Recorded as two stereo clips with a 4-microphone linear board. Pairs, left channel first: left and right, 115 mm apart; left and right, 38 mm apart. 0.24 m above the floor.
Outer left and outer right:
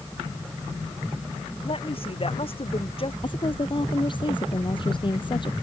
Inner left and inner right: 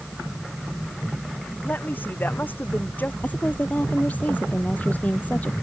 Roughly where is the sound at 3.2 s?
Left.